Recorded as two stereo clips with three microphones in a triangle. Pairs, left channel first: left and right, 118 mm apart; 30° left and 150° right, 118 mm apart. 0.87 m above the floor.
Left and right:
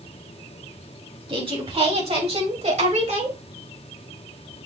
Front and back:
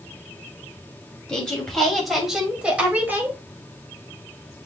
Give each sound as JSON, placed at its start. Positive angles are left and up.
{"t": 1.3, "sound": "a woman speaking", "azimuth_deg": -50, "distance_m": 4.0}